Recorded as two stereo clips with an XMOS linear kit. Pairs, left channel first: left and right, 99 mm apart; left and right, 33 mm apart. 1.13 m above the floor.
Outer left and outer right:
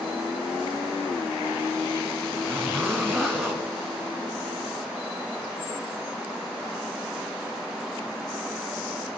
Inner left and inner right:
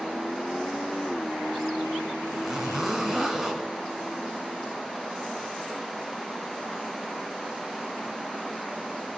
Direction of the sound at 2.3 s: 5° left (ahead or behind).